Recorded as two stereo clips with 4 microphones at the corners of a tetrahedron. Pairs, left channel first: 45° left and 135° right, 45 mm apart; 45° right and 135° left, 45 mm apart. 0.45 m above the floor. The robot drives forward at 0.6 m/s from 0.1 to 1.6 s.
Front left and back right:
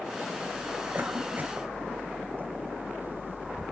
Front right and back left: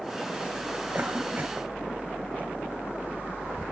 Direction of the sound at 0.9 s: Straight behind.